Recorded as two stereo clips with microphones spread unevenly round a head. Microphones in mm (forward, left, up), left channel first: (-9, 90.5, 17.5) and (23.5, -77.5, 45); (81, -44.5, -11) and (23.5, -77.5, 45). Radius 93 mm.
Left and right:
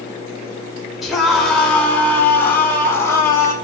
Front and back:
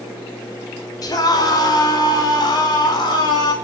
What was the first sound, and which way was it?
A scream, 10° left.